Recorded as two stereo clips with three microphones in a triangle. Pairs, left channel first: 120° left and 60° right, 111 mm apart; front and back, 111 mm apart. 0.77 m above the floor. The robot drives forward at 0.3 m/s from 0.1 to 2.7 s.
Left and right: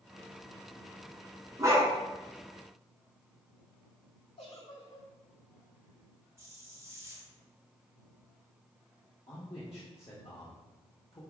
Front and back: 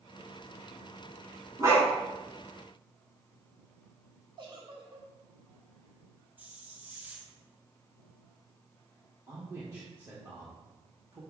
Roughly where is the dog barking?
Behind right.